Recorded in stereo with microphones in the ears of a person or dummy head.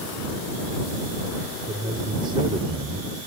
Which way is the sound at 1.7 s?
20° right (ahead or behind).